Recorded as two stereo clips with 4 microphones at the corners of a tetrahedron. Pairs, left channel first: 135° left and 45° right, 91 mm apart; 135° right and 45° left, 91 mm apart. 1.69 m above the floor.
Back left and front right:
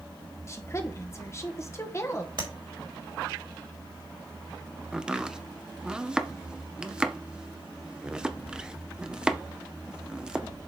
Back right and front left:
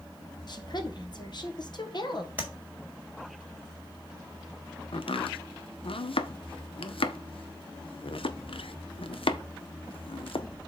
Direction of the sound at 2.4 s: 20° right.